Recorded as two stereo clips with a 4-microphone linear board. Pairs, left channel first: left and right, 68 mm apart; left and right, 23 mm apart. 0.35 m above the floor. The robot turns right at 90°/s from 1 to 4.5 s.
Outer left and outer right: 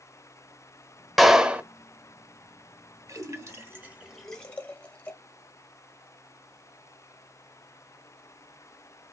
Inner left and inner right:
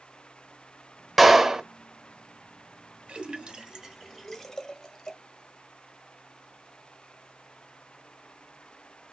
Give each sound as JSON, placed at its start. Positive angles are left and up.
{"t": 1.2, "sound": "a clap", "azimuth_deg": -175, "distance_m": 0.9}
{"t": 3.1, "sound": "a splash", "side_deg": -50, "distance_m": 1.2}